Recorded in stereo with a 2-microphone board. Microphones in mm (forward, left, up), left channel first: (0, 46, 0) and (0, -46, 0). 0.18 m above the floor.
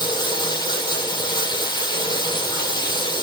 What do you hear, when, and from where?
0.0 s running water: 50° left (ahead or behind), 3 m